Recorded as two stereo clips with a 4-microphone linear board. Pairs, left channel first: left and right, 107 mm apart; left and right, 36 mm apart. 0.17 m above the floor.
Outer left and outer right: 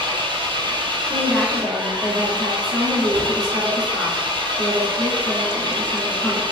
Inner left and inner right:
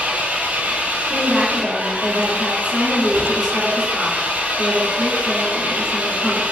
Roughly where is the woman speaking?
Centre.